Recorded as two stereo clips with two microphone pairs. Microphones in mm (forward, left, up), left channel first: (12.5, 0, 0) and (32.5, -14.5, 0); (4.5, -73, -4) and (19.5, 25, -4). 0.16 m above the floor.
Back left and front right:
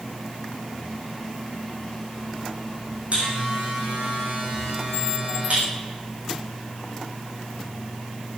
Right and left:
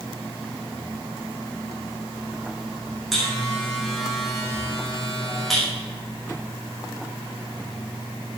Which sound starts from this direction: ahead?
A buzzer, at 3.1 s.